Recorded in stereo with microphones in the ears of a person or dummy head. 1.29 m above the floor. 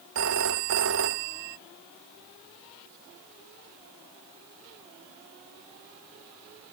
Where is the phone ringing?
65° right (ahead or behind).